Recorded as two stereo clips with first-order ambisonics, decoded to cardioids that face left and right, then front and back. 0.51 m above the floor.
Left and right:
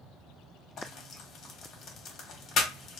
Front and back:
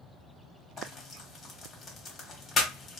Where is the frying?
60° left, 0.8 m.